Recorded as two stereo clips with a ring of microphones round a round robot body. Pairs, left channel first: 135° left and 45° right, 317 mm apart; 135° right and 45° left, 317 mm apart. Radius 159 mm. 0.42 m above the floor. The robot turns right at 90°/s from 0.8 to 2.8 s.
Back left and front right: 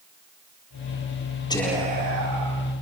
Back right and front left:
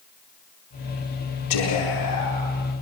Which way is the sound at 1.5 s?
150° right.